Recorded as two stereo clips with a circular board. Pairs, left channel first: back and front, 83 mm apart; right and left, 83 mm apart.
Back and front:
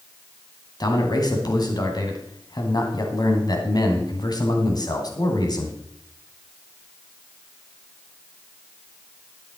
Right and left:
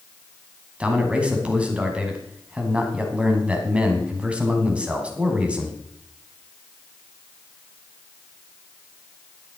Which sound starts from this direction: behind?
A man speaking, at 0.8 s.